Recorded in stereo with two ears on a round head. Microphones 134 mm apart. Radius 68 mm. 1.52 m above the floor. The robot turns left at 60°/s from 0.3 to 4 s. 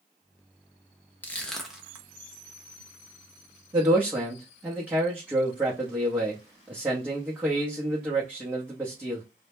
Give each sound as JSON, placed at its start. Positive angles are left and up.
{"t": 1.2, "sound": "crushing", "side_deg": 15, "distance_m": 0.6}
{"t": 3.7, "sound": "a man speaking", "side_deg": -30, "distance_m": 0.7}